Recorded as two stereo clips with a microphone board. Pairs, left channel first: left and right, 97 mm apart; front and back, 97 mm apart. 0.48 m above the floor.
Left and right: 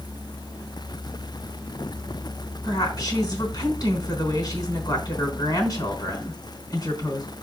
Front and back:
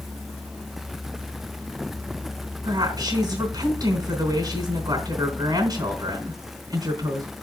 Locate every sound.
2.6 s a woman speaking: 135° left, 4 m